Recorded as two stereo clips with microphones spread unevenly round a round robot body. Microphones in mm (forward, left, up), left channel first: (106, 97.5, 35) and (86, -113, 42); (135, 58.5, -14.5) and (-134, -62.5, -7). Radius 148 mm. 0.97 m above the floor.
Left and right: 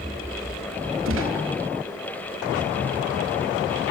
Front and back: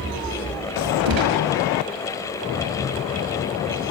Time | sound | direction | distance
1.1 | a gunshot | 140° right | 4.5 m